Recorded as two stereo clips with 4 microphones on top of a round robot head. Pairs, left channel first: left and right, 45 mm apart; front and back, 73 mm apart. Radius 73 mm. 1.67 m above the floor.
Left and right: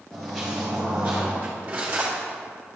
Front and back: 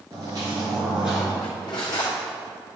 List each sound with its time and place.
0.1 s footsteps: 170° left, 1.9 m; by 1.3 s 80° right, 1.7 m
1.4 s cutlery clinking: 35° right, 2 m